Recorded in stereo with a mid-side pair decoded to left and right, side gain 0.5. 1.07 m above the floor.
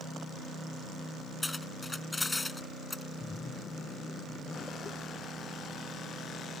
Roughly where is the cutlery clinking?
Ahead.